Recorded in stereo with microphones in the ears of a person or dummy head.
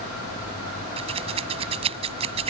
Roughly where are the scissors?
Right.